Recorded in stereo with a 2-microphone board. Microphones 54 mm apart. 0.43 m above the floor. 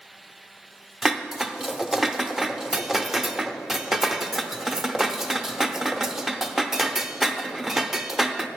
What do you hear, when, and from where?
1.0 s dishes clattering: 5° right (ahead or behind), 0.5 m